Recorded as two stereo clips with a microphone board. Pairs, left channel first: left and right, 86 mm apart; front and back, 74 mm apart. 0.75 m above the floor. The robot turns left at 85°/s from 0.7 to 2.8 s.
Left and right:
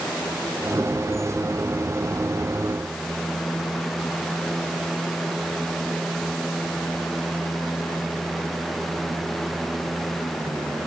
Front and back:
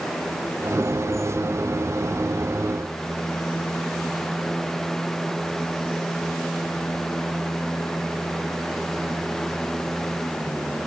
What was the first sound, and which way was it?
Only background noise.